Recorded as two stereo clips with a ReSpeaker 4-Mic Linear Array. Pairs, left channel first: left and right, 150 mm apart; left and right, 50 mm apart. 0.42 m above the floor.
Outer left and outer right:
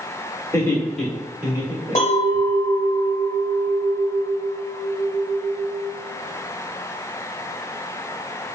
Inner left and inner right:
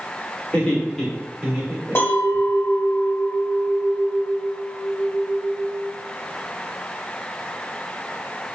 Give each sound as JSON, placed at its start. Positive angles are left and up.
{"t": 0.5, "sound": "laughter", "side_deg": 20, "distance_m": 1.0}
{"t": 1.9, "sound": "a clink", "side_deg": 55, "distance_m": 0.9}